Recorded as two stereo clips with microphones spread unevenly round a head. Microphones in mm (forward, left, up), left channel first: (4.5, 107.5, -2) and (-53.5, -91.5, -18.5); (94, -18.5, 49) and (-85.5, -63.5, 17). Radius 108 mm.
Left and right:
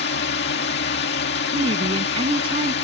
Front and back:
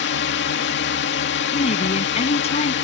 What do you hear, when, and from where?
0.0 s a drone: 35° left
1.5 s a woman speaking: 40° right